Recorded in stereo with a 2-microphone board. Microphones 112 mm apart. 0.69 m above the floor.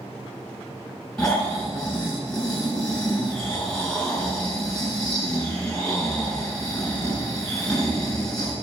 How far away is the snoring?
About 6.5 m.